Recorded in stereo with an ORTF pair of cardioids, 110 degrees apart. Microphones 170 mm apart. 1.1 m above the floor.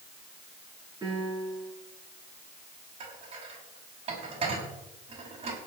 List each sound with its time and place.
1.0 s a piano: 20° right, 8.5 m
3.0 s dishes clattering: 35° right, 5.5 m